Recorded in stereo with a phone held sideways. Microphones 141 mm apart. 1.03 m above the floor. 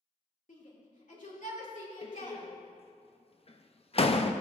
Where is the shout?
65° left (ahead or behind), 2.5 m.